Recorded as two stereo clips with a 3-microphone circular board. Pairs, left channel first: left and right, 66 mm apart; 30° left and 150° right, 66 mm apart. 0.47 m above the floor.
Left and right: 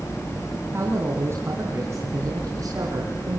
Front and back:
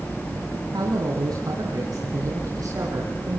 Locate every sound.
0.7 s a man speaking: 145° right, 3.5 m; by 3.4 s 120° right, 5 m